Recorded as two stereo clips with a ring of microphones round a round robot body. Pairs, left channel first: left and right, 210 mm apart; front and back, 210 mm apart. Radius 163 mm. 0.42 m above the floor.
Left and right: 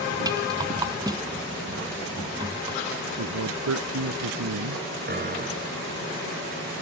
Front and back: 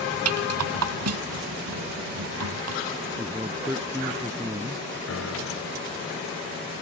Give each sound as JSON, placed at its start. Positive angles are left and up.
{"t": 0.2, "sound": "a rattle", "azimuth_deg": -170}
{"t": 3.2, "sound": "a man speaking", "azimuth_deg": -100}
{"t": 5.1, "sound": "a piano", "azimuth_deg": -45}